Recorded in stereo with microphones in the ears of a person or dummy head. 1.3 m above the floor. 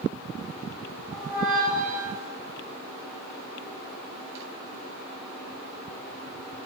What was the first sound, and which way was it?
A squeak, 15° right (ahead or behind).